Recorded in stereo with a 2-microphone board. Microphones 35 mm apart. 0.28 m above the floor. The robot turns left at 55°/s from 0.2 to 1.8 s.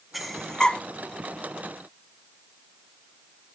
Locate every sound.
0.1 s breathing: centre (ahead or behind), 1.0 m; by 0.8 s 35° left (ahead or behind), 1.0 m